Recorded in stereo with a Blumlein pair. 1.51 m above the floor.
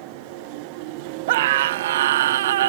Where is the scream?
55° right; by 2.7 s 60° right.